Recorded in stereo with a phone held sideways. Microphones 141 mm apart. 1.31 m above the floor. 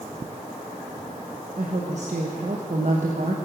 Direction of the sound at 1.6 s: 60° right (ahead or behind).